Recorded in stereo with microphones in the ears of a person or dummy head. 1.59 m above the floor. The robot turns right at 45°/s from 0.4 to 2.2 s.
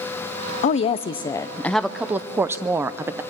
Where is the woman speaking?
125° left, 0.6 m; by 3.2 s 165° right, 0.6 m.